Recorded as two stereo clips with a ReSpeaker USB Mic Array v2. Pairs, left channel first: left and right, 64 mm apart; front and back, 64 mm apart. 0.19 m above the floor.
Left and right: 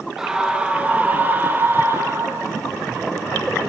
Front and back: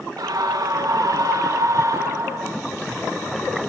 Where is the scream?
170° right, 3.5 m; by 2.6 s 140° right, 5.5 m.